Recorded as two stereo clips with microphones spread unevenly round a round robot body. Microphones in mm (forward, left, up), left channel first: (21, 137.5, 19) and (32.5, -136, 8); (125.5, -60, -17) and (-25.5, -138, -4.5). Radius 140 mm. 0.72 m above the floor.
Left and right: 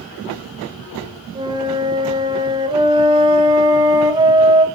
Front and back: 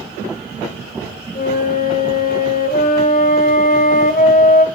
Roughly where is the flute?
Ahead.